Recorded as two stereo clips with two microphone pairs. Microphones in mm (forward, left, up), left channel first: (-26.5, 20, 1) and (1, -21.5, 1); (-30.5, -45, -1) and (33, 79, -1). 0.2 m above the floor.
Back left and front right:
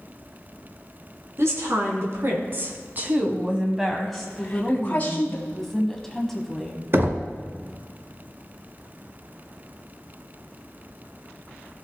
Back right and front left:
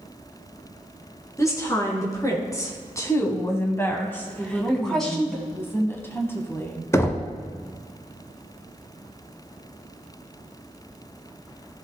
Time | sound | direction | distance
1.4 | a woman speaking | 50° right | 2.5 m
4.4 | a woman speaking | 170° right | 1.4 m
6.9 | knocking | 55° right | 1.1 m